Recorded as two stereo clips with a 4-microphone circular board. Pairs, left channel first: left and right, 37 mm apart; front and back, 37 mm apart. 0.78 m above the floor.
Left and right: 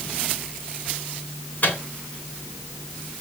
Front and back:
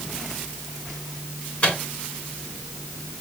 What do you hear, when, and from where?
1.6 s a microwave: 55° left, 3 m